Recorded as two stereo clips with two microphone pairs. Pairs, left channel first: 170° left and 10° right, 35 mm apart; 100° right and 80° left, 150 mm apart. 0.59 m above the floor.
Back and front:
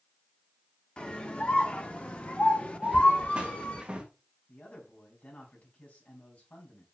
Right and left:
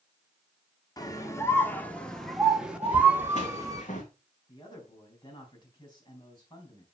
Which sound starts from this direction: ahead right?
Footsteps, at 2.8 s.